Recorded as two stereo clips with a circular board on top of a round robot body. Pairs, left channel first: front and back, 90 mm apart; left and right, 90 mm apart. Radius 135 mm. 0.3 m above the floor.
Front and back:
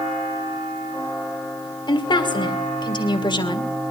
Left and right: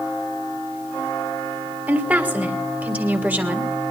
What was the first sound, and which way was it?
A woman speaking, 15° right.